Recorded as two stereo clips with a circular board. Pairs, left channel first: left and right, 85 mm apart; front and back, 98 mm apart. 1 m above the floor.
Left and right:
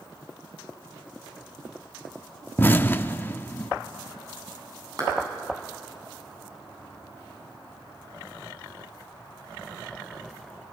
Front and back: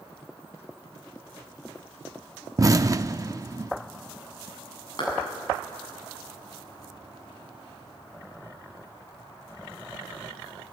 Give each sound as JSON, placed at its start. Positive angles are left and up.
{"t": 2.6, "sound": "an explosion", "azimuth_deg": 145, "distance_m": 0.6}
{"t": 5.0, "sound": "a clap", "azimuth_deg": -45, "distance_m": 8.0}